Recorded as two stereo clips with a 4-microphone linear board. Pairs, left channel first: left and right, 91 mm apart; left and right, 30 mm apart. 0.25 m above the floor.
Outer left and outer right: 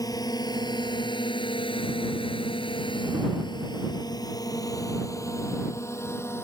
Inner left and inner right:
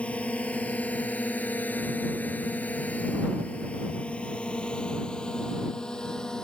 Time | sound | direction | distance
0.0 | a drone | 40° left (ahead or behind) | ?